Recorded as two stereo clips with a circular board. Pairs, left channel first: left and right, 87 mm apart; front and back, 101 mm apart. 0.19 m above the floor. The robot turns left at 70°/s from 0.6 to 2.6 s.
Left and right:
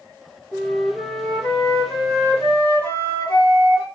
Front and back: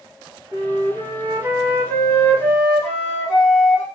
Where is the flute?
Straight behind, 1.3 m; by 3.9 s 40° left, 1.3 m.